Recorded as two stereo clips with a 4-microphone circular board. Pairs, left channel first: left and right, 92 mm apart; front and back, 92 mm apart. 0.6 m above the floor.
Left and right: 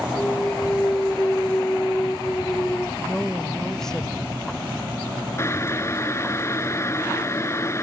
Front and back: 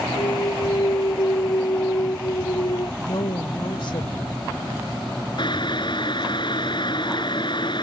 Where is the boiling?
30° left.